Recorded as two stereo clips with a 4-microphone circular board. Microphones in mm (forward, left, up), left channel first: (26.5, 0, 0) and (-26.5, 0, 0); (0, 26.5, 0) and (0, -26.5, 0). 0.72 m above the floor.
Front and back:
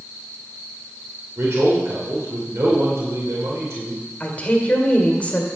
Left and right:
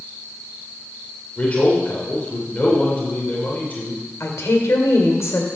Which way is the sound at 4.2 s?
65° left.